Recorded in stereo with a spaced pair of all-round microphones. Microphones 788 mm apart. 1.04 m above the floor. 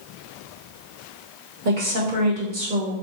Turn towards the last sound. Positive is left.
turn(degrees=-75)  # may be behind; listen again after turning